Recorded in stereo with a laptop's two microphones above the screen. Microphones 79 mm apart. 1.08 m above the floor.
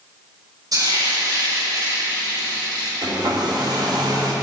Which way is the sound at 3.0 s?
65° right (ahead or behind).